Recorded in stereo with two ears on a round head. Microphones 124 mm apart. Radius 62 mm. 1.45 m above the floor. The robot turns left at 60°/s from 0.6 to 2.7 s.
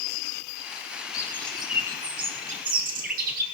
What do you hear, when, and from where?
1.1 s a bird: 25° left, 6 m; by 3.4 s 70° right, 6 m